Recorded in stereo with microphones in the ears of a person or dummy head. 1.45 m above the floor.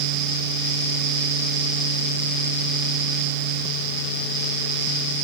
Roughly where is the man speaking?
I don't hear a man speaking.